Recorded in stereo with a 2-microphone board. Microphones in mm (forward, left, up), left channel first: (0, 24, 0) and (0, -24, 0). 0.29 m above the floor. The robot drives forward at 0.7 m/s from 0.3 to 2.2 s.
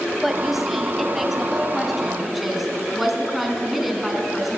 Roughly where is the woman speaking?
Centre.